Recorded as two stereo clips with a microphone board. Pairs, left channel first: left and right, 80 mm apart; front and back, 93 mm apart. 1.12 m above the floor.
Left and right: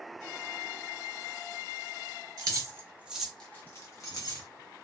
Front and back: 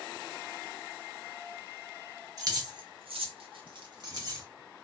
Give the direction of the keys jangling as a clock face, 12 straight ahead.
4 o'clock.